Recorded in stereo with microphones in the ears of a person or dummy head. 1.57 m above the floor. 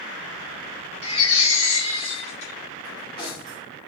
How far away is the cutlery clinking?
About 2.5 m.